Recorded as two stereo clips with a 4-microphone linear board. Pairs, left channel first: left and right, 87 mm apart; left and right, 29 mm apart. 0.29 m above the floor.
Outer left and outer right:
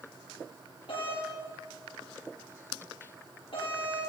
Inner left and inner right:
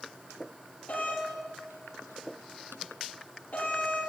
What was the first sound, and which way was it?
A doorbell, 65° left (ahead or behind).